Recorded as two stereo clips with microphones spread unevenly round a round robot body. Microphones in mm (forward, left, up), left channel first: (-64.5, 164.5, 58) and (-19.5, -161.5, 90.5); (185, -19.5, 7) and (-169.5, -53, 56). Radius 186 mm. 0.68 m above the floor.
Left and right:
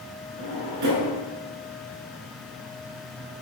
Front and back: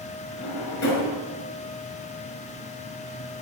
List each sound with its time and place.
0.4 s a drawer: 40° right, 6.5 m